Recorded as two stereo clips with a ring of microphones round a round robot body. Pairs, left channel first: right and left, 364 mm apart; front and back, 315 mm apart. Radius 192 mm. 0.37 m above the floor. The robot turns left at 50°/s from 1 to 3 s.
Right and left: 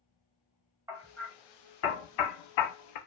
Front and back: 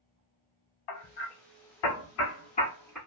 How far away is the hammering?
About 0.8 m.